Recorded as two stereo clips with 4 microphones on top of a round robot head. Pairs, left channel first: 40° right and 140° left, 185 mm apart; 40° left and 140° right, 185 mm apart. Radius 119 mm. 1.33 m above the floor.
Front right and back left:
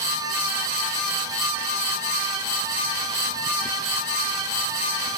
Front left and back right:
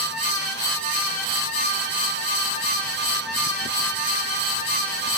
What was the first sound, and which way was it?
Only background noise.